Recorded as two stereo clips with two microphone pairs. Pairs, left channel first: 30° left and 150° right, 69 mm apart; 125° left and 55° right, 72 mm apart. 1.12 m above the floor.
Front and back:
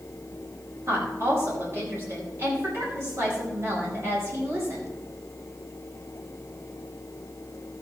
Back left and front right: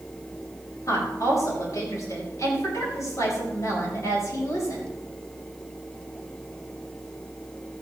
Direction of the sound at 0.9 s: 165° left.